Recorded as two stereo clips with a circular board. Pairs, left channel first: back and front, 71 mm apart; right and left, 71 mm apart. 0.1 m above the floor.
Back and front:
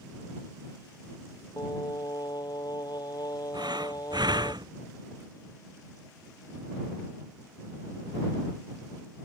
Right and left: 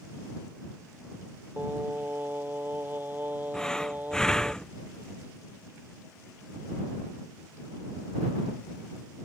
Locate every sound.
1.6 s singing: 155° left
3.5 s breathing: 10° right